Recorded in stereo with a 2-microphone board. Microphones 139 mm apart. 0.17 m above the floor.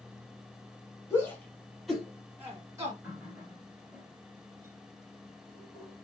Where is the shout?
20° left (ahead or behind), 1.3 m; by 2.9 s 25° right (ahead or behind), 1.3 m.